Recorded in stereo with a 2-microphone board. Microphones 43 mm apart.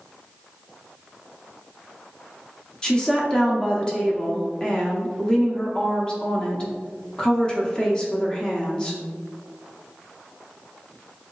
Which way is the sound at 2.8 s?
15° left (ahead or behind).